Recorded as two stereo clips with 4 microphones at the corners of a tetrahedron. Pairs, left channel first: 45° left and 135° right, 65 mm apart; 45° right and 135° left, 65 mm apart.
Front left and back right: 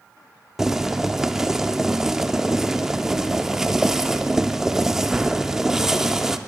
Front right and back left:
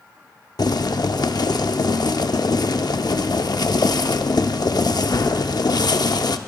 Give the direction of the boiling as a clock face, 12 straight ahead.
2 o'clock.